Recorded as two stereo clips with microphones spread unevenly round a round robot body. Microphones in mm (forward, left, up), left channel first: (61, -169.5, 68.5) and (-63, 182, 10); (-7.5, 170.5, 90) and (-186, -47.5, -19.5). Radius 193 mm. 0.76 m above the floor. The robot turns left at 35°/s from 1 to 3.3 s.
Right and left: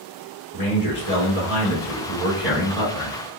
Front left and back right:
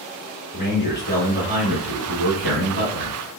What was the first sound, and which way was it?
A man speaking, 40° right.